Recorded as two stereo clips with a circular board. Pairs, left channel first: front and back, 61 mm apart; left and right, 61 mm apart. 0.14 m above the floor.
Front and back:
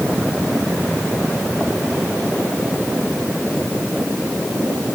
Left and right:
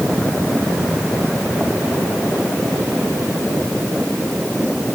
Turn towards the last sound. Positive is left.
No sound to turn to.